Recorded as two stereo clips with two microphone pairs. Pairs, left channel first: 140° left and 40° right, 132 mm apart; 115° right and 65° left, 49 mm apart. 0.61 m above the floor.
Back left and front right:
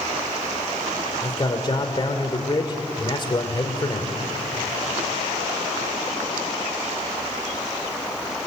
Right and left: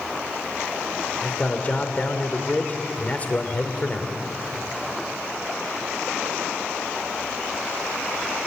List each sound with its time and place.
1.2 s a man speaking: 170° right, 2.5 m